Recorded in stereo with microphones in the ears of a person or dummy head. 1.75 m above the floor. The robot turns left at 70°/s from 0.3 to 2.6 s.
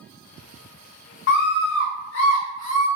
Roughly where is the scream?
Behind left.